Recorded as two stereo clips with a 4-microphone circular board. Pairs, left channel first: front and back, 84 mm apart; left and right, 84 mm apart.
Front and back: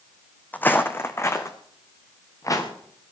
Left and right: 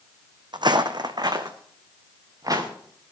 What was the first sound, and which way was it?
Footsteps, 70° right.